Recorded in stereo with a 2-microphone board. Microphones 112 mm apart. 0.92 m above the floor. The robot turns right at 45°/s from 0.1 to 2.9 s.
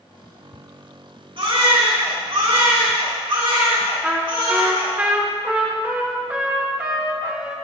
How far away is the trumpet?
About 1.3 m.